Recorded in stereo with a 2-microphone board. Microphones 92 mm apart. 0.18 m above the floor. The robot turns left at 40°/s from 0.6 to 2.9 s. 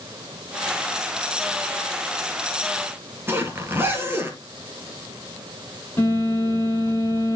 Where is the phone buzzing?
25° left (ahead or behind), 7 m.